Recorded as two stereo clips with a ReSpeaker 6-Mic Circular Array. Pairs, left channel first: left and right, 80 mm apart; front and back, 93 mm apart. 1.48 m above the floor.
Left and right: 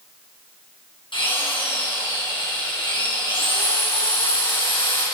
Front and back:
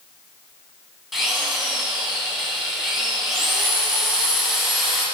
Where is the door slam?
No door slam in this recording.